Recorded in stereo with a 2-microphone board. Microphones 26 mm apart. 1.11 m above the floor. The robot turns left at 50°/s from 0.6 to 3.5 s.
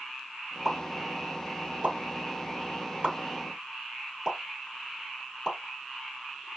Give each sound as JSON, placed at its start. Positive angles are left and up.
{"t": 0.7, "sound": "a pop", "side_deg": -10, "distance_m": 2.5}